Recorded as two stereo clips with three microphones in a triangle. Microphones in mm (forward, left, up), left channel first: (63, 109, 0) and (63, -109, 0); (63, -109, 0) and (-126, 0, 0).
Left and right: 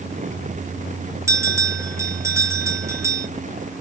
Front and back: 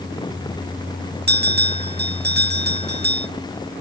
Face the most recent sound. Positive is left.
turn(degrees=-165)